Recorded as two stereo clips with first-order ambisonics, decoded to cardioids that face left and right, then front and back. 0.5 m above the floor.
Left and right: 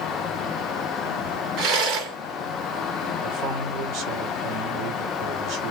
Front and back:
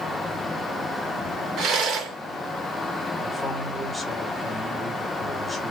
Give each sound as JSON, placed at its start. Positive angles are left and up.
{"t": 1.6, "sound": "a rattle", "azimuth_deg": -125, "distance_m": 3.5}
{"t": 3.2, "sound": "a man speaking", "azimuth_deg": -90, "distance_m": 1.4}